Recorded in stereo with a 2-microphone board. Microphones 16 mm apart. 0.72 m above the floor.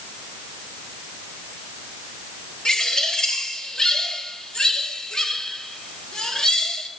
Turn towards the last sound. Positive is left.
turn(degrees=55)  # may be behind; listen again after turning